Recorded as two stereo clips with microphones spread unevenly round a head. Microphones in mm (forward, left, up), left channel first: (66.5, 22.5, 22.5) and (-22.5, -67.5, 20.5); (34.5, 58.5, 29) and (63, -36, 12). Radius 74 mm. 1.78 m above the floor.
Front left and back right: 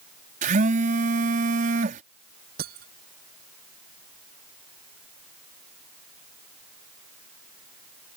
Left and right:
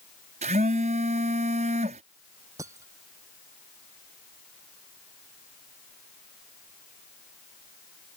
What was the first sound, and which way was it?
A phone buzzing, 110° right.